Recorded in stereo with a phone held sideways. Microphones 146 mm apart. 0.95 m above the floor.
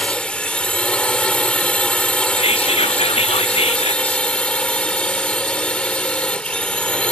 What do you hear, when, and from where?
0.0 s a drone: 5° left (ahead or behind)
2.4 s whispering: 40° left (ahead or behind)